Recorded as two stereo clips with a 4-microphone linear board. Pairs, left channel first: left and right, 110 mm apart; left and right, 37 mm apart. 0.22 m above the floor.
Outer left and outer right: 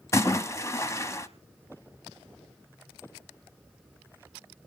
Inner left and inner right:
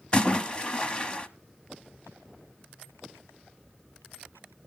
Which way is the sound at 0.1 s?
25° left (ahead or behind).